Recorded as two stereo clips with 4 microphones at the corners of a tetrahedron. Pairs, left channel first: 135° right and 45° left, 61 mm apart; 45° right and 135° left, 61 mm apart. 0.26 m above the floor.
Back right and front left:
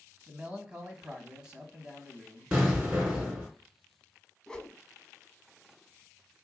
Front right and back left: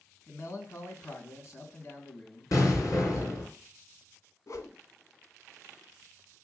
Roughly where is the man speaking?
Ahead right.